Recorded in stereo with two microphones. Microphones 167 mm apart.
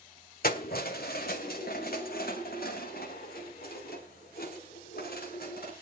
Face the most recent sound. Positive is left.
turn(degrees=75)  # may be behind; listen again after turning